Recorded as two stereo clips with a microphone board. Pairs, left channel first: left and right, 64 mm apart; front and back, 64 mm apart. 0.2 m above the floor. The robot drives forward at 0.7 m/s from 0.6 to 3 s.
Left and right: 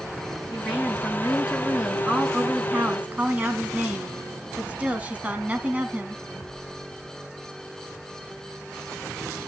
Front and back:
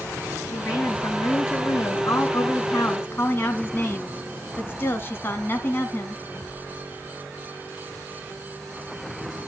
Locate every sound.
0.5 s a woman speaking: 15° right, 3 m; by 6.2 s 35° right, 1.7 m